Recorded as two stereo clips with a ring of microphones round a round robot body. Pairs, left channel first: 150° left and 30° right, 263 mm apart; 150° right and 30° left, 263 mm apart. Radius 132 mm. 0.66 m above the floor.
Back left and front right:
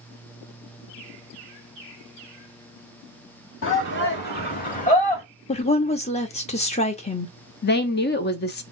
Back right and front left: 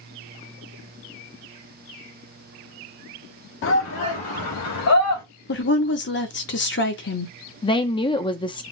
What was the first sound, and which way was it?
A shout, straight behind.